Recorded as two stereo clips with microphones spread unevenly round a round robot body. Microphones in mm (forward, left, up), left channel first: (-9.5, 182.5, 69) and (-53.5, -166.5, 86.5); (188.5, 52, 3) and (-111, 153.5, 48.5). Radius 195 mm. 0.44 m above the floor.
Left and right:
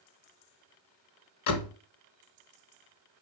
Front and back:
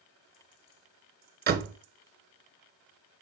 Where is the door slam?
100° left, 1.4 m.